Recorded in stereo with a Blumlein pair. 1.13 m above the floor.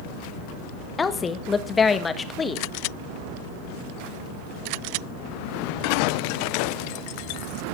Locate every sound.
1.0 s a woman speaking: 15° left, 1.6 m